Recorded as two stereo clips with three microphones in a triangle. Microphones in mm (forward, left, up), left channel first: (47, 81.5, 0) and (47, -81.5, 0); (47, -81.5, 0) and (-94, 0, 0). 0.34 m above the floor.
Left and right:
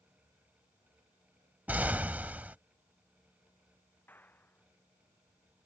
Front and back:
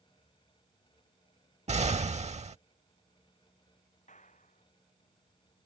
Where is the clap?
10° left.